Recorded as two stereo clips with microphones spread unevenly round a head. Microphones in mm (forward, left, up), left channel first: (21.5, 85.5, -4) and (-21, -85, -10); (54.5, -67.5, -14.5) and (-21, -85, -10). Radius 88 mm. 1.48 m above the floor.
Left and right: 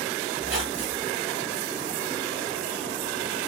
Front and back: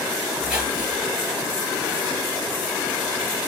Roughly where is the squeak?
Right.